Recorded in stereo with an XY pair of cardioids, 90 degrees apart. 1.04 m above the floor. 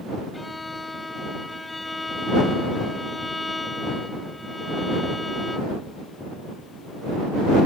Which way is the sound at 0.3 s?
20° left.